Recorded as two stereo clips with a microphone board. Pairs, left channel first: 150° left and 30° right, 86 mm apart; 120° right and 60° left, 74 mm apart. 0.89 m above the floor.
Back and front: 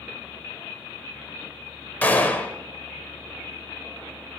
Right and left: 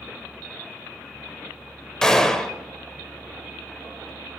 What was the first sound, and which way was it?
A gunshot, 170° left.